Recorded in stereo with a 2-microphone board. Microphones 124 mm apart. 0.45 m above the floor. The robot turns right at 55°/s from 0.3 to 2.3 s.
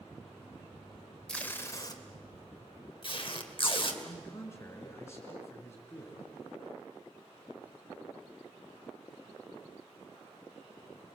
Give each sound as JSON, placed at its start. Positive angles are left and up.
{"t": 1.3, "sound": "tape being pulled", "side_deg": 5, "distance_m": 1.9}
{"t": 4.0, "sound": "a man speaking", "side_deg": 25, "distance_m": 5.0}